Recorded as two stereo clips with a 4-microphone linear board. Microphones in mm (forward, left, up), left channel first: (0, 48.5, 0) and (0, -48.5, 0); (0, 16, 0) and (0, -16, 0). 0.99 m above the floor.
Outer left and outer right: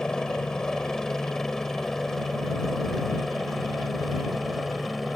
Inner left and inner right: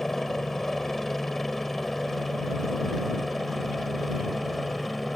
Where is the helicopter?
5° left (ahead or behind); by 5.2 s centre (ahead or behind).